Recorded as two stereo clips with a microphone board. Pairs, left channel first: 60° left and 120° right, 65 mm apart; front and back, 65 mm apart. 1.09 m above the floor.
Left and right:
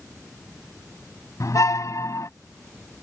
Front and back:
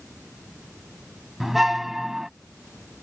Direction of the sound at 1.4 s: 95° left.